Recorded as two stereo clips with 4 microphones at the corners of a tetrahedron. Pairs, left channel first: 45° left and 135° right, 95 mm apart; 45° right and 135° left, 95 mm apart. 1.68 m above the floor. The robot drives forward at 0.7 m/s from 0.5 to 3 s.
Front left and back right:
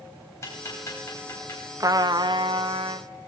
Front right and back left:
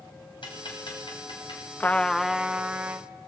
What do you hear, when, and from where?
0.4 s ticking: 15° right, 10 m
1.8 s a trumpet: 105° right, 0.6 m; by 3.1 s 155° right, 1.1 m